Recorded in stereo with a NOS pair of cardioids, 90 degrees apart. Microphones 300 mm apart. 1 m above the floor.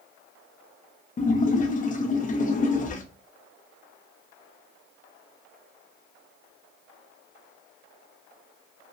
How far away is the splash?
About 0.5 m.